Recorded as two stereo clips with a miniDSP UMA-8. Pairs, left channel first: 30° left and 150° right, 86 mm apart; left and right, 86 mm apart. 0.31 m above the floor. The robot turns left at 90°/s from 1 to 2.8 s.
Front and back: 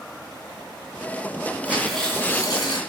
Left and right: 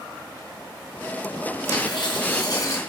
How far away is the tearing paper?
About 2.5 m.